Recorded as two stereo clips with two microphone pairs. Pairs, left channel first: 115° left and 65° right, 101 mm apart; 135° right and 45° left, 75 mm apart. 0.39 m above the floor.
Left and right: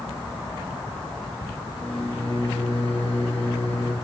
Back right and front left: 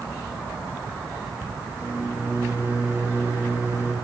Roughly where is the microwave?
Left.